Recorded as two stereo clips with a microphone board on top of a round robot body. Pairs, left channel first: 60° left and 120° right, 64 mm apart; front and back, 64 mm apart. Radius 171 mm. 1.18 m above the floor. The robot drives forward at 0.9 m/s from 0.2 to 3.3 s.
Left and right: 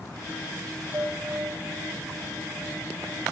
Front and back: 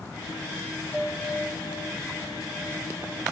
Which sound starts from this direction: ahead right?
A bell, at 0.9 s.